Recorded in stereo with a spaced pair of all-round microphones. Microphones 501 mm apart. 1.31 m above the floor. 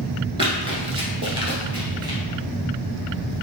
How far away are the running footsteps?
About 1.3 m.